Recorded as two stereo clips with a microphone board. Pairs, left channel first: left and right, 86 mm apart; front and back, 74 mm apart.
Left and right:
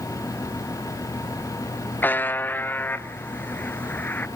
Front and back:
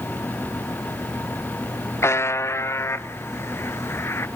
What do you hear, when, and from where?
2.0 s a buzzer: 30° left, 0.6 m